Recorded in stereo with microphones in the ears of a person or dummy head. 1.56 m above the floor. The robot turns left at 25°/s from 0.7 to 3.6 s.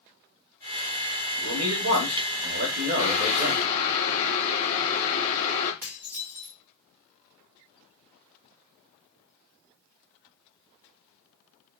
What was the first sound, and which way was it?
A man speaking, 95° right.